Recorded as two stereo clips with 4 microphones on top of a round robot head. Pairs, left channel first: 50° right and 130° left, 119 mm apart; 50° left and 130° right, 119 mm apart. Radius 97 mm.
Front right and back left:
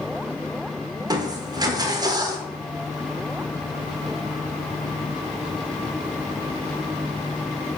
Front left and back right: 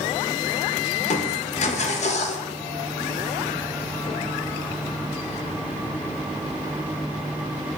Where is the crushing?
70° left, 1.0 m.